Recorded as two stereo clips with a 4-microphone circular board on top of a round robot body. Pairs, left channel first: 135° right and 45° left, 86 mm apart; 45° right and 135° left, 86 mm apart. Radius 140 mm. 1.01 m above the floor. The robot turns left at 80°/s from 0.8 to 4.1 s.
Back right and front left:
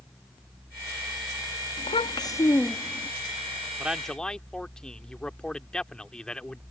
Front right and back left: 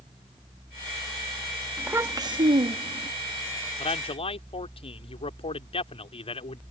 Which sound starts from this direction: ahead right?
A man speaking, at 3.8 s.